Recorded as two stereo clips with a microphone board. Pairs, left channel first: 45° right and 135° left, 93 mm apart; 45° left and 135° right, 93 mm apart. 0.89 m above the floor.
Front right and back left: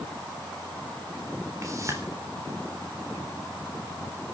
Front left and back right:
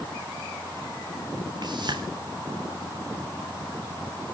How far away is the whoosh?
About 4 m.